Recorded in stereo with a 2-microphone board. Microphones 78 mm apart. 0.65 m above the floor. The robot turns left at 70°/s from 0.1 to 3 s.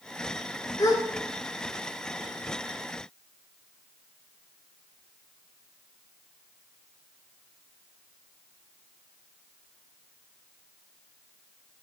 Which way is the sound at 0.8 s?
50° left (ahead or behind).